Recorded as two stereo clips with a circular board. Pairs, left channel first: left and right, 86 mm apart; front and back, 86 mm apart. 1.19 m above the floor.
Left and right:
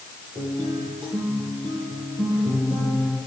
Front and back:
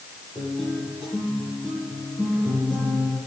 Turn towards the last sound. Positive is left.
turn(degrees=-90)